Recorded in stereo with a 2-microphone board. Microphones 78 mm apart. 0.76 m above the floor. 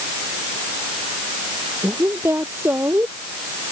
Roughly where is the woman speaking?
Right.